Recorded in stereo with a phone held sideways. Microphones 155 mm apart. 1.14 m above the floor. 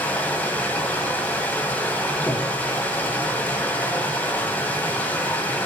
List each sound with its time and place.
0.0 s running water: 10° left (ahead or behind), 1.9 m
2.3 s breathing: 15° left (ahead or behind), 1.9 m